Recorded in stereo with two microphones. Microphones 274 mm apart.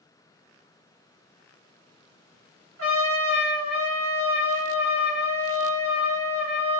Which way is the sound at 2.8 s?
55° right (ahead or behind).